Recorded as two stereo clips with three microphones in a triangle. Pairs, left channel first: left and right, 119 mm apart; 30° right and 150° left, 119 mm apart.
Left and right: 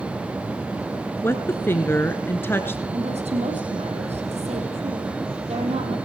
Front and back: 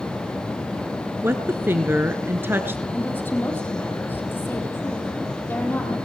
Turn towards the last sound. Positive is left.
turn(degrees=-105)